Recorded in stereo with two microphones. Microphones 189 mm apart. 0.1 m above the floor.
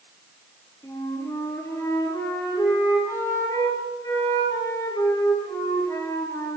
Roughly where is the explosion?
I don't hear an explosion.